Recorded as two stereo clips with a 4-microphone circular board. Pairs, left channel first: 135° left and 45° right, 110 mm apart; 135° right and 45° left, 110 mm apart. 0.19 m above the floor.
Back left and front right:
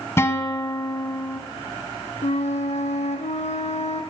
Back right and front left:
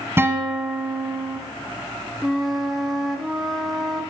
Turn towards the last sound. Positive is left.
turn(degrees=135)